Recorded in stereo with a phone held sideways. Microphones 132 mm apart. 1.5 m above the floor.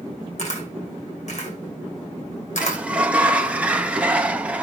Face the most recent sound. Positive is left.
turn(degrees=-10)  # may be behind; listen again after turning